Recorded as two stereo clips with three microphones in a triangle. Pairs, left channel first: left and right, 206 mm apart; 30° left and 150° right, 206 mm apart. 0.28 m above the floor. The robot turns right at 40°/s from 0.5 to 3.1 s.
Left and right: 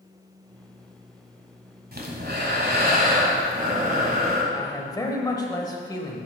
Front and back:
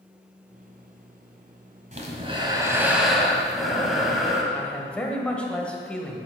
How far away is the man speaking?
About 1.0 m.